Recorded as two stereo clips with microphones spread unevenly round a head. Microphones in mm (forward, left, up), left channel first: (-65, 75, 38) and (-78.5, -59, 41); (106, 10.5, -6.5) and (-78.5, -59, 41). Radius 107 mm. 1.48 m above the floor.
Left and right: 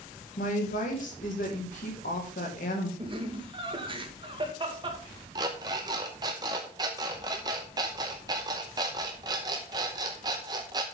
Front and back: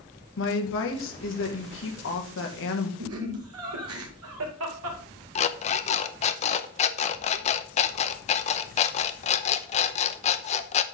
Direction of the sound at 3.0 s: 150° right.